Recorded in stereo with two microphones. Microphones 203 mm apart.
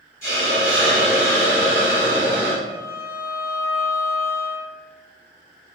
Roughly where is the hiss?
Left.